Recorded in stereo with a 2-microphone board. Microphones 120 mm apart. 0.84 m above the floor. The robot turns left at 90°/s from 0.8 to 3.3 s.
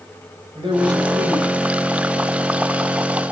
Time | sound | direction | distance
0.6 | a man speaking | 135° right | 4 m